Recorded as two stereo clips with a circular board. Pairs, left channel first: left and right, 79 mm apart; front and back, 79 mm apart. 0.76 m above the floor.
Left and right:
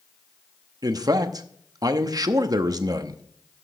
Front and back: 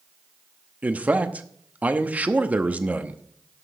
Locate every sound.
0.8 s a man speaking: 110° right, 0.8 m